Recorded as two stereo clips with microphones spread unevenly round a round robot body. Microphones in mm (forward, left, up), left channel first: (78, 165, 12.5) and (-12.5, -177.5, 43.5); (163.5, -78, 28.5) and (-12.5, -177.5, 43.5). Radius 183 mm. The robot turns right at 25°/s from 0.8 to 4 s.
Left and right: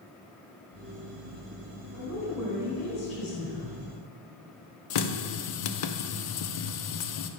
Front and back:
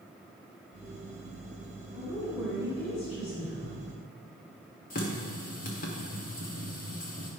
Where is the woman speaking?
15° left, 3.5 m; by 3.8 s 60° left, 3.5 m.